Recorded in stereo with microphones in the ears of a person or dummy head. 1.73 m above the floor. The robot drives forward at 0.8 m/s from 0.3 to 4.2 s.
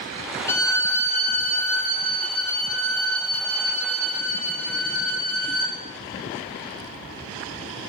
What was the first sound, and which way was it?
A violin, 15° left (ahead or behind).